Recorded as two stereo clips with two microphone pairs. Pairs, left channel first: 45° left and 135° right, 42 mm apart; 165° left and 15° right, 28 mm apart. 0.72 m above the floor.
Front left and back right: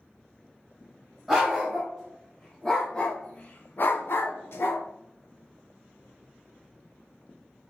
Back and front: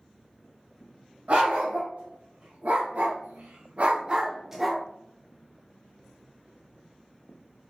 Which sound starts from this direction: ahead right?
A dog barking, at 1.3 s.